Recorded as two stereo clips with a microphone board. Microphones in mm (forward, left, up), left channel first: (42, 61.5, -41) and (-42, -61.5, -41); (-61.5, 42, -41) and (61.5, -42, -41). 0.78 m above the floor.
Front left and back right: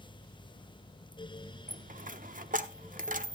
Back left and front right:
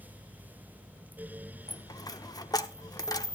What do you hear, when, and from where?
1.7 s a dropped coin: 150° right, 0.7 m